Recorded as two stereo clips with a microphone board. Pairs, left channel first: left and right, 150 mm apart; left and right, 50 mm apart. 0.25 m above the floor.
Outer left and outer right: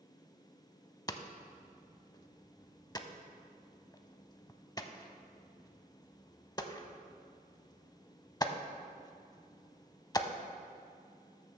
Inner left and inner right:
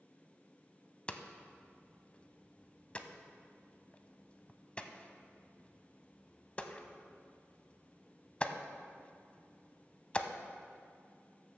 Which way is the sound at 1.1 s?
25° left (ahead or behind).